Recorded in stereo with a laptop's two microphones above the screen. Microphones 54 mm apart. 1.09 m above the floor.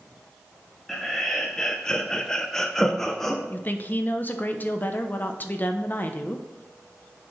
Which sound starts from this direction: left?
A woman speaking, at 3.5 s.